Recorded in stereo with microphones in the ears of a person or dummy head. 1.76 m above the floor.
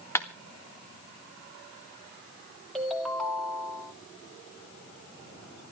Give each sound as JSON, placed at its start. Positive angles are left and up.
{"t": 0.1, "sound": "a clap", "side_deg": 10, "distance_m": 1.6}
{"t": 2.8, "sound": "a ringtone", "side_deg": 0, "distance_m": 3.0}